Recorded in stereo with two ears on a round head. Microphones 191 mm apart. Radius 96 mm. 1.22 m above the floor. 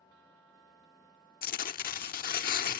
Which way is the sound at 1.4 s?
45° left (ahead or behind).